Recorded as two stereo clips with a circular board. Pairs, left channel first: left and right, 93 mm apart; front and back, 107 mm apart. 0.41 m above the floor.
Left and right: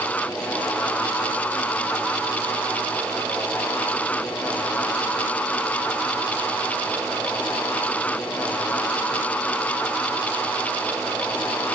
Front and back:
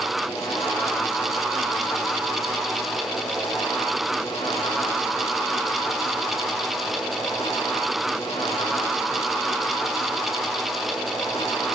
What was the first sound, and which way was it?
Only background noise.